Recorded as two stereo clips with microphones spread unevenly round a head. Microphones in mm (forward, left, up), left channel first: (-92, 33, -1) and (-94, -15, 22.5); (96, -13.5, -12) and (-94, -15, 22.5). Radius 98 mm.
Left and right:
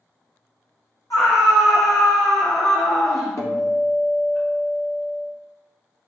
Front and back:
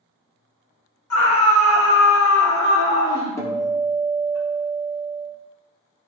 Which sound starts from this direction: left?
A guitar, at 3.4 s.